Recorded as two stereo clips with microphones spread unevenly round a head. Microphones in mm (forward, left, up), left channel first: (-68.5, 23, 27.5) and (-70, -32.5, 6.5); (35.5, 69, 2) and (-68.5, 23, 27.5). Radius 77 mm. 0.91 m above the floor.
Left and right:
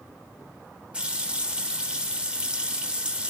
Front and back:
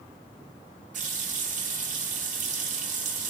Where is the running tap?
160° right, 1.1 m.